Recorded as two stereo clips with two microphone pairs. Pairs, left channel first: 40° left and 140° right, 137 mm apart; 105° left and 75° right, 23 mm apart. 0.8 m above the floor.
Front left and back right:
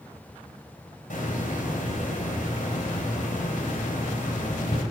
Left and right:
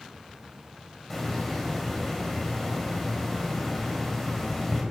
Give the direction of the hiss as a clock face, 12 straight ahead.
11 o'clock.